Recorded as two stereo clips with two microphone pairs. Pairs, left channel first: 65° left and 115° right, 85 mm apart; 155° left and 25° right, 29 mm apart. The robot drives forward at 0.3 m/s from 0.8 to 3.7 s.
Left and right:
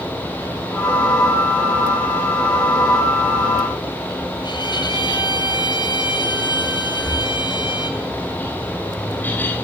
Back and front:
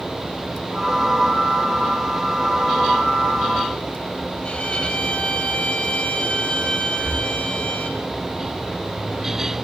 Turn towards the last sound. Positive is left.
turn(degrees=10)